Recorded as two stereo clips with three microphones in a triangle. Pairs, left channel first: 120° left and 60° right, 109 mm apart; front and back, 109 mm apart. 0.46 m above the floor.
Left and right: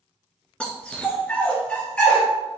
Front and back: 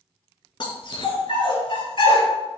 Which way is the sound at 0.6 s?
40° left.